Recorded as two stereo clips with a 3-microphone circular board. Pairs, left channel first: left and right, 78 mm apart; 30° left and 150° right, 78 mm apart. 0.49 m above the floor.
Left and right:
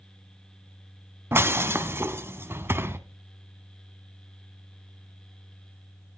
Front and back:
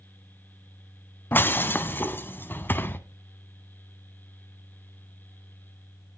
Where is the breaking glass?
35° right, 0.9 m.